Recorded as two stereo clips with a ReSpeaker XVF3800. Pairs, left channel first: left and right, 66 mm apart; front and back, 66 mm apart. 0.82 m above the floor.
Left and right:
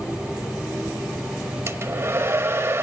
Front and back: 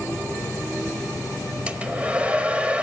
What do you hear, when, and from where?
1.7 s a hair dryer: 120° right, 0.7 m